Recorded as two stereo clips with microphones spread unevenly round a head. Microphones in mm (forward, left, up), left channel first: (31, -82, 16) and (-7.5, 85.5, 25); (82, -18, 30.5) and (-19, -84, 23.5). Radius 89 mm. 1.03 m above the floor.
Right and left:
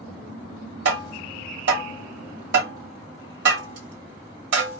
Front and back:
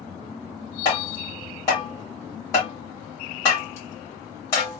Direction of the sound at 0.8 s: 105° left.